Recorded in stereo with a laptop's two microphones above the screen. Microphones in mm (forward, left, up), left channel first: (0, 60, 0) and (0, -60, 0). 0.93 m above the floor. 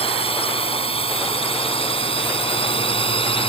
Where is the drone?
55° left (ahead or behind); by 3.5 s 50° left (ahead or behind).